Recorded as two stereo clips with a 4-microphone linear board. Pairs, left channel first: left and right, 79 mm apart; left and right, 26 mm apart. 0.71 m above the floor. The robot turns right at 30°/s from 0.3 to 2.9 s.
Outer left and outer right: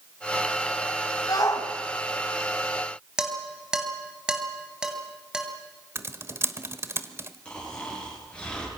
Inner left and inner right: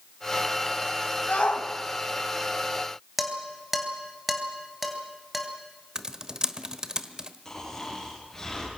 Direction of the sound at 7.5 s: 15° left (ahead or behind).